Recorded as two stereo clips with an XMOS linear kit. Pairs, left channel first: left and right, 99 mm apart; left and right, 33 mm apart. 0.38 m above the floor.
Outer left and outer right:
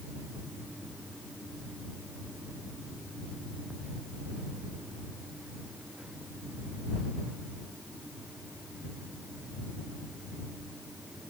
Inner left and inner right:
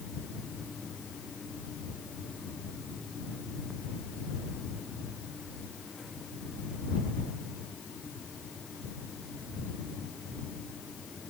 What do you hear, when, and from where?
Only background noise.